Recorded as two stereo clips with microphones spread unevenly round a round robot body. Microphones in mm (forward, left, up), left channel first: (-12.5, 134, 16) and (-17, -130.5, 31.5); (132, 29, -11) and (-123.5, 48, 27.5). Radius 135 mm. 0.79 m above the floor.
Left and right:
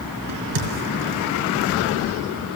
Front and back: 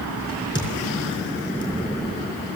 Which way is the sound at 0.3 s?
80° right.